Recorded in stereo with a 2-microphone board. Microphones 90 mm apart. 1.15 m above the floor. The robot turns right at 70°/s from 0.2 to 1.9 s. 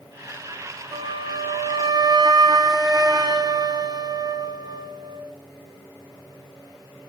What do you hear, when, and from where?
0.9 s a flute: 120° right, 0.6 m; by 5.3 s 50° right, 0.6 m